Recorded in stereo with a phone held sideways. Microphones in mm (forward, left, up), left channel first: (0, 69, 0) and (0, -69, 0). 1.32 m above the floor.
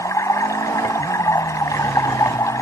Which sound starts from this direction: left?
Running water, at 0.0 s.